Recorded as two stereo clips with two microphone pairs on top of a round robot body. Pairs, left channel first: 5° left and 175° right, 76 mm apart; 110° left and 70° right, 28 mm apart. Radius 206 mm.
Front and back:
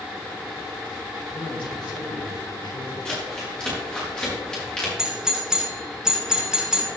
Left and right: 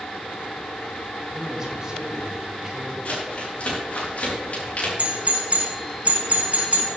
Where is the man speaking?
5° left, 5 m; by 3.0 s straight ahead, 6.5 m.